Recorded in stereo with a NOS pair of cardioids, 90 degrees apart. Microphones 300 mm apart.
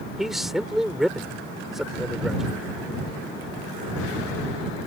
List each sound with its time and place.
0.2 s a man speaking: straight ahead